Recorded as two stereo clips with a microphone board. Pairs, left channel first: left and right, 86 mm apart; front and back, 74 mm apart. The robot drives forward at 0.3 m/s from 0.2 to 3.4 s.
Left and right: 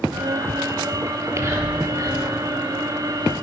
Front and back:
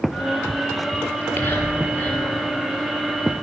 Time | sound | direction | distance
1.1 | whispering | 50° right | 1.9 m